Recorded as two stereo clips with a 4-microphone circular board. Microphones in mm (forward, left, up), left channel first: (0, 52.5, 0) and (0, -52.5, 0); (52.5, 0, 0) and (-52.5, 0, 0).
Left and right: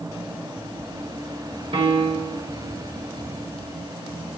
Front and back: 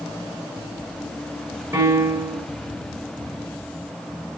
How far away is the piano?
About 1.4 m.